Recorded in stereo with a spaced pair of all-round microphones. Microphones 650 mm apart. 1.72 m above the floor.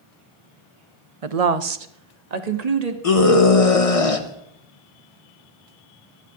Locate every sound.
1.2 s a woman speaking: 55° right (ahead or behind), 0.8 m; by 2.9 s 70° right (ahead or behind), 1.6 m
3.0 s a scream: 60° left (ahead or behind), 1.5 m